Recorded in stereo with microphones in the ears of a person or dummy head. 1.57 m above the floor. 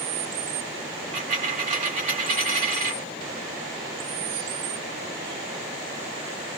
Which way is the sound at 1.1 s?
20° right (ahead or behind).